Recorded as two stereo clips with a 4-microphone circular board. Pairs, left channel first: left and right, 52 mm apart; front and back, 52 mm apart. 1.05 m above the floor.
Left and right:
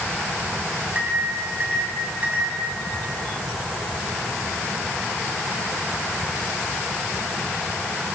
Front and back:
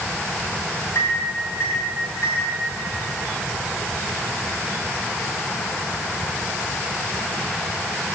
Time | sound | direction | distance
0.9 | a microwave | 35° right | 7.5 m